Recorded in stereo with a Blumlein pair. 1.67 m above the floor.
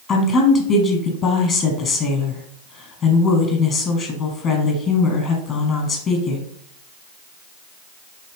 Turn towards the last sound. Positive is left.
turn(degrees=30)